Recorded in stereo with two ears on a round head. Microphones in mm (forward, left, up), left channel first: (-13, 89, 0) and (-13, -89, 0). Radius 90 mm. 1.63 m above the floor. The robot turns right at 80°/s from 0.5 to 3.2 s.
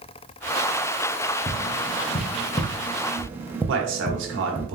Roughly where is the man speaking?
Right.